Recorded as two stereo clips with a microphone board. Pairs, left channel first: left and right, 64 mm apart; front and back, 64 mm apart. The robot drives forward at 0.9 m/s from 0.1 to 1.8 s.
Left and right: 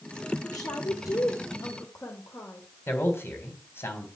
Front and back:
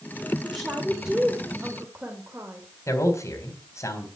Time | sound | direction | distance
0.4 | a woman speaking | 85° left | 1.9 m
2.9 | a man speaking | 40° left | 3.5 m